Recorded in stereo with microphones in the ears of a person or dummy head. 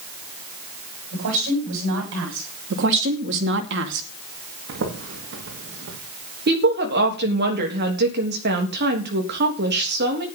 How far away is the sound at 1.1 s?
About 9.5 m.